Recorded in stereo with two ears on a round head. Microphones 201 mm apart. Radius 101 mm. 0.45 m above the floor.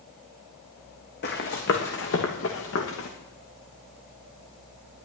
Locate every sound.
1.2 s running footsteps: 45° left (ahead or behind), 2.5 m; by 3.1 s 65° left (ahead or behind), 3 m